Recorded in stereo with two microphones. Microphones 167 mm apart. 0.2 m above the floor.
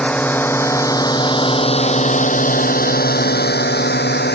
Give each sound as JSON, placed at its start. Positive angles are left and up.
{"t": 0.0, "sound": "a drone", "side_deg": 5}